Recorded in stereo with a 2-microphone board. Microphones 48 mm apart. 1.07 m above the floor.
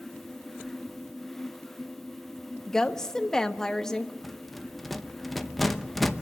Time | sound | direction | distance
2.7 | a woman speaking | 10° left (ahead or behind) | 1.1 m
4.2 | a rattle | 5° left (ahead or behind) | 0.8 m